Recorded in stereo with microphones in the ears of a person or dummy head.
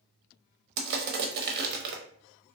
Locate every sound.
0.8 s crushing: 55° right (ahead or behind), 0.7 m